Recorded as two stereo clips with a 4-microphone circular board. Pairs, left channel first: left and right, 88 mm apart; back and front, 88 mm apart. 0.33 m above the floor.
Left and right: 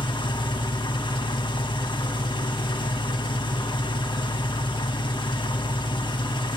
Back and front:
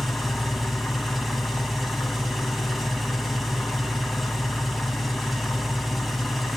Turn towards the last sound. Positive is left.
turn(degrees=90)